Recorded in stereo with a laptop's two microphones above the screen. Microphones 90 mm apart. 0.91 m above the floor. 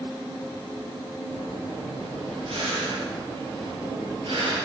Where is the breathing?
65° right (ahead or behind), 5.5 m.